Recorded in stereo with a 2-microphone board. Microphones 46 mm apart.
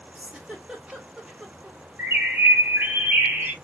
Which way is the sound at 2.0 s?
50° right (ahead or behind).